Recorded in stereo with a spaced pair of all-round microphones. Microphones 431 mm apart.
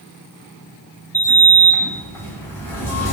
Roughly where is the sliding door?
Centre.